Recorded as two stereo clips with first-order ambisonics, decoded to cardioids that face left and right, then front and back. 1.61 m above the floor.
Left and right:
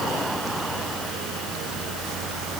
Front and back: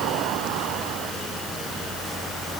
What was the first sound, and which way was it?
Only background noise.